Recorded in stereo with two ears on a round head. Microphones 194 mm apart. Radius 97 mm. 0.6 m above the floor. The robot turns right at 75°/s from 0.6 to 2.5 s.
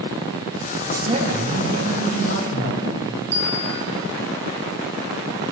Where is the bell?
55° right (ahead or behind), 7.5 m.